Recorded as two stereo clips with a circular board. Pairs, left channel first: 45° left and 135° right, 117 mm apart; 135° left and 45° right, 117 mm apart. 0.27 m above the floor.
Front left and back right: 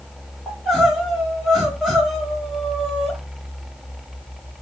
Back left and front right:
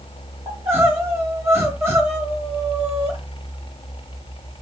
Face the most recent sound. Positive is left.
turn(degrees=-50)